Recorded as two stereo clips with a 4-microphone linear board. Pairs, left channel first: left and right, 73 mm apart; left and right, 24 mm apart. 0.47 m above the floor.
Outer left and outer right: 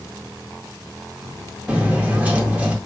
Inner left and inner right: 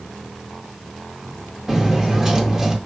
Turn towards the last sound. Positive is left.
turn(degrees=-20)  # may be behind; listen again after turning